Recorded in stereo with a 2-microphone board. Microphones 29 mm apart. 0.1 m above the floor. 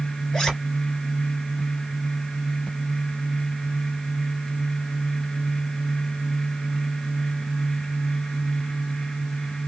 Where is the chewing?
I don't hear chewing.